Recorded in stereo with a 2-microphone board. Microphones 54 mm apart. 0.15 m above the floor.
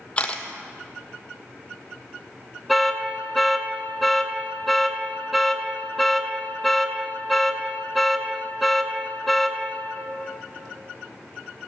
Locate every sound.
0.2 s a camera shutter: 25° left (ahead or behind), 0.8 m
2.7 s an alarm: centre (ahead or behind), 0.8 m